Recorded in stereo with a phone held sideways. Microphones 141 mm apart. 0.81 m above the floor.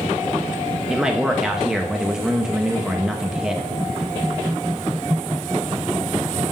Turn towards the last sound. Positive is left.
turn(degrees=-5)  # may be behind; listen again after turning